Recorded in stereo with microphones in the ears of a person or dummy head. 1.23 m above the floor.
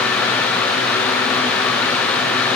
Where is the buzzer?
No buzzer in this recording.